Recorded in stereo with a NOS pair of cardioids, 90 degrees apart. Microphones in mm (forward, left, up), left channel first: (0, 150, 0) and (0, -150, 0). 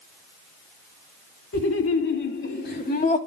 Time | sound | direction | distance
1.5 | laughter | 50° left | 2.5 m